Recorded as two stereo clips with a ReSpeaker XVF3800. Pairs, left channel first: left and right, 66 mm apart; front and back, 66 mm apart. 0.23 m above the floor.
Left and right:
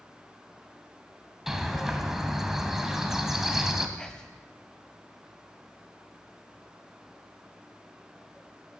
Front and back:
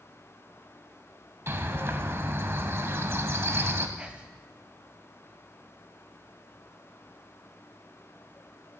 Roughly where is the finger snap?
I don't hear a finger snap.